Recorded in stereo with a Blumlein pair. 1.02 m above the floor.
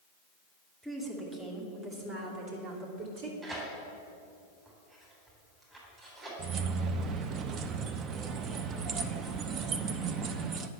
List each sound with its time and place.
0.8 s a woman speaking: 5° right, 3 m; by 3.3 s 50° right, 3 m
3.4 s tearing paper: 20° right, 3.5 m
6.4 s keys jangling: 30° right, 0.6 m